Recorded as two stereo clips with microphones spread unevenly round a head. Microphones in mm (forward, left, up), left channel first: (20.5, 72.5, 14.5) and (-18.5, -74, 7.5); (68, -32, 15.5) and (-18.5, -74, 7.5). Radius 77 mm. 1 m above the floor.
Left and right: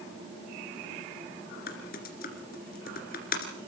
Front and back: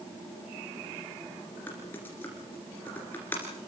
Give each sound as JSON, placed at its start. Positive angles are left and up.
{"t": 1.7, "sound": "typing on a keyboard", "azimuth_deg": 100, "distance_m": 2.5}